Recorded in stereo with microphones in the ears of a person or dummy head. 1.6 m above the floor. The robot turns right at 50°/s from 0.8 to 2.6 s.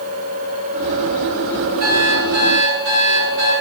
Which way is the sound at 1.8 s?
135° right.